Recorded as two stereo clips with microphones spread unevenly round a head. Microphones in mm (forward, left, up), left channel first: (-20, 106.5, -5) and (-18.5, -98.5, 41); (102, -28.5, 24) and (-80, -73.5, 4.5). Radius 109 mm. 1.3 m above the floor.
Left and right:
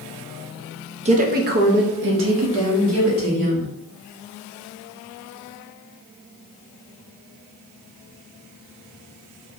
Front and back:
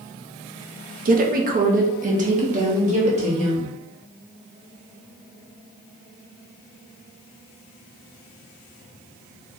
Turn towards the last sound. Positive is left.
turn(degrees=-110)